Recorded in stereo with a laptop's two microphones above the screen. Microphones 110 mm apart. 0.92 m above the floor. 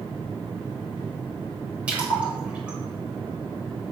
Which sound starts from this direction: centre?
A splash, at 1.9 s.